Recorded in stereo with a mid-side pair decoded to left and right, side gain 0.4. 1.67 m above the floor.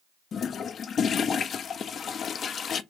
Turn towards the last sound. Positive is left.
turn(degrees=60)